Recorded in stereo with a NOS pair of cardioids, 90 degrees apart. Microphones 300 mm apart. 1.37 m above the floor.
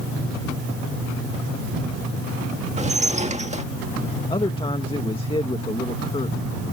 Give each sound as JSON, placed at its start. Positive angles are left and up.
{"t": 2.8, "sound": "dishes clattering", "azimuth_deg": -25}
{"t": 4.3, "sound": "a man speaking", "azimuth_deg": 15}